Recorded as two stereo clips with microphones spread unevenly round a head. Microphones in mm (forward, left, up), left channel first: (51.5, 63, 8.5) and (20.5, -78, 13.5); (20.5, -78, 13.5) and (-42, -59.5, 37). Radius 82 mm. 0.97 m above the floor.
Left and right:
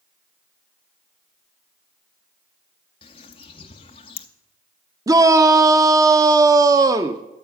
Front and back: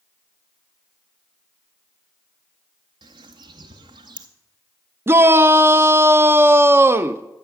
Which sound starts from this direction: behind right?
A shout, at 5.1 s.